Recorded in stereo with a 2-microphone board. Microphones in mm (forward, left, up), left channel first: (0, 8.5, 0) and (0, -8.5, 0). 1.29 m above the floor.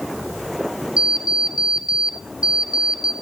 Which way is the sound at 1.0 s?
70° right (ahead or behind).